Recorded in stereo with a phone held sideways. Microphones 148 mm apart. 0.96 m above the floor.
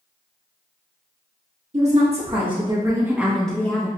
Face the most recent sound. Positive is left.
turn(degrees=25)  # may be behind; listen again after turning